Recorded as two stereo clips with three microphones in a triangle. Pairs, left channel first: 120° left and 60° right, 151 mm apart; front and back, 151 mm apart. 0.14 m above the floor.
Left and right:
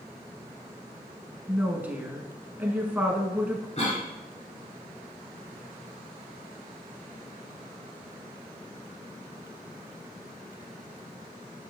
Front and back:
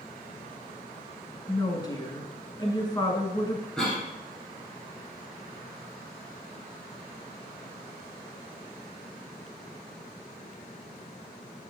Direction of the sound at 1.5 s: 5° left.